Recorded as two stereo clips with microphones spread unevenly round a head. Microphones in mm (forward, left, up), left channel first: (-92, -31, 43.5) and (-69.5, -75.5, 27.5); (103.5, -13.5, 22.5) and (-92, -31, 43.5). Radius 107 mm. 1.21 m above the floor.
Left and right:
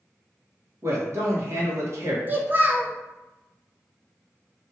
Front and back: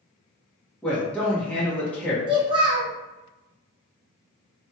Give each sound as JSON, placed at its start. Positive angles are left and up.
{"t": 0.8, "sound": "a man speaking", "azimuth_deg": -80, "distance_m": 1.1}
{"t": 2.3, "sound": "a child speaking", "azimuth_deg": -120, "distance_m": 0.8}